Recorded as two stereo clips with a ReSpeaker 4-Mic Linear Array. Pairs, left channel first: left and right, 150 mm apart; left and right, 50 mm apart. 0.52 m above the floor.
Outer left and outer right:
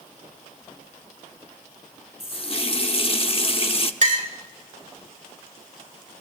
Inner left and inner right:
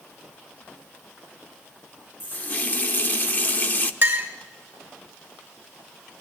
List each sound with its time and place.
2.2 s a running tap: 40° left (ahead or behind), 0.6 m
4.0 s a clink: 55° right (ahead or behind), 1.8 m